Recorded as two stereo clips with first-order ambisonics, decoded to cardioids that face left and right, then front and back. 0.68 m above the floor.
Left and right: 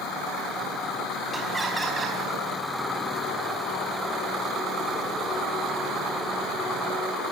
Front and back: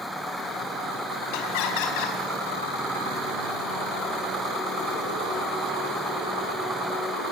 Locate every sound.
1.3 s laughter: 5° right, 5 m